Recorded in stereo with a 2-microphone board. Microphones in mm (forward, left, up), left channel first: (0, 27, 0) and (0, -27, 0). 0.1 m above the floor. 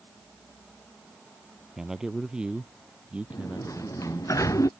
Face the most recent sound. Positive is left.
turn(degrees=75)  # may be behind; listen again after turning